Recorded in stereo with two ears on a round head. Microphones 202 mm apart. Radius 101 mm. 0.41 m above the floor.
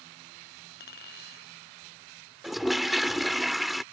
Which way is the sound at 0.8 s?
45° left (ahead or behind).